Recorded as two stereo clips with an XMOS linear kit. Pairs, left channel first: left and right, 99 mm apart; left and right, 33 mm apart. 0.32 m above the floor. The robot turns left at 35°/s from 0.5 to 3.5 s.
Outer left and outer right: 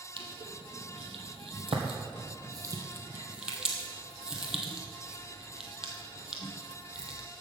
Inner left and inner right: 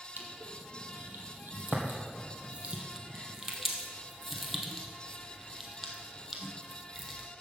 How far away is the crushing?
About 1.7 m.